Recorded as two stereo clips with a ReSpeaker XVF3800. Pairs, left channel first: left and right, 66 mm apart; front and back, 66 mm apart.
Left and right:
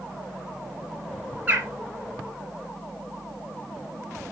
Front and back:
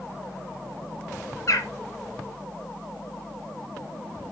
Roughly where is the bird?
Ahead right.